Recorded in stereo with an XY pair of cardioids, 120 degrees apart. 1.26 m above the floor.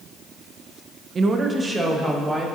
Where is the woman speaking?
35° right, 0.8 m; by 2.5 s 10° right, 2.5 m.